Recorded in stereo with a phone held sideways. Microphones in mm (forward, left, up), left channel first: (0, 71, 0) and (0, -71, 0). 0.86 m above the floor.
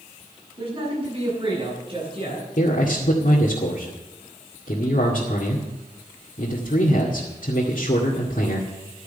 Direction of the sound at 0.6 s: 40° right (ahead or behind).